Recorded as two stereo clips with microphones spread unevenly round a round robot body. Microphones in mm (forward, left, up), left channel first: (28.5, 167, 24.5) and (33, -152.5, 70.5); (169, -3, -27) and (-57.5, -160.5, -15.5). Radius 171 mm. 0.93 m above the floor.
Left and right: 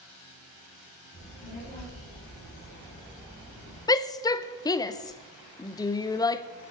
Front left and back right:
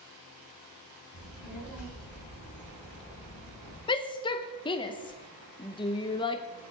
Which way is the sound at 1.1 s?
10° left.